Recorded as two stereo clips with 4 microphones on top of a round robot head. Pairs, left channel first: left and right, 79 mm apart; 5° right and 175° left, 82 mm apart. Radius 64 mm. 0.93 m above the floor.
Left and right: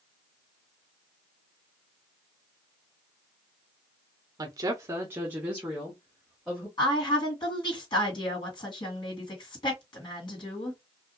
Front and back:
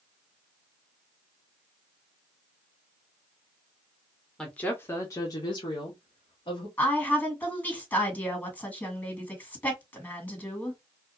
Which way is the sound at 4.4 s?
85° right.